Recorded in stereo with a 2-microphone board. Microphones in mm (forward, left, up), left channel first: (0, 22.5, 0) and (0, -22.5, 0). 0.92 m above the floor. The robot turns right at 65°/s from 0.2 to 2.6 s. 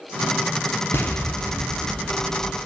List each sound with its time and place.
0.9 s an explosion: 90° left, 0.6 m; by 2.7 s 160° right, 0.6 m